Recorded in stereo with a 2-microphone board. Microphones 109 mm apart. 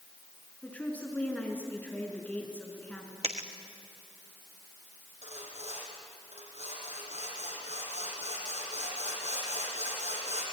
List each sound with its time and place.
0.6 s a woman speaking: 15° left (ahead or behind), 4.5 m
3.2 s a dropped coin: 75° right (ahead or behind), 1.8 m
5.2 s sawing: 85° right, 6.5 m